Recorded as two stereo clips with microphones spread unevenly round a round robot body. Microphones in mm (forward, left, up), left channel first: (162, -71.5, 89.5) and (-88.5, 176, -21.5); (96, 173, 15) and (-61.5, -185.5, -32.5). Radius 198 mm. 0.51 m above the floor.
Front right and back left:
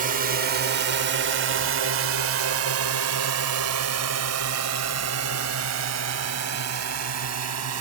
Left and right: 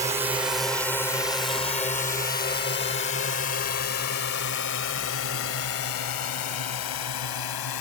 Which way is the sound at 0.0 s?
175° left.